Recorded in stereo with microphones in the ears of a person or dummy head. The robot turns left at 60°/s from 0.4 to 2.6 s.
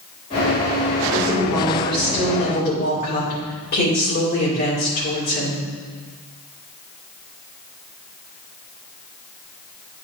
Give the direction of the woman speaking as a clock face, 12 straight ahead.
5 o'clock.